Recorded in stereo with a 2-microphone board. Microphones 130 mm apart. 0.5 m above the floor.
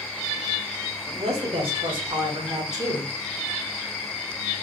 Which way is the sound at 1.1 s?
50° right (ahead or behind).